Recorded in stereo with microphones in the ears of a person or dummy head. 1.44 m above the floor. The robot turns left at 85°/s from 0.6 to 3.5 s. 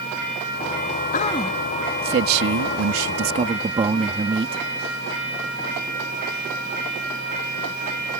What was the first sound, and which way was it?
A man speaking, 45° left.